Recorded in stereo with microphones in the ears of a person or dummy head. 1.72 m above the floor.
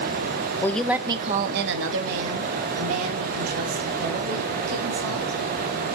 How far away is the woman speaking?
About 0.9 m.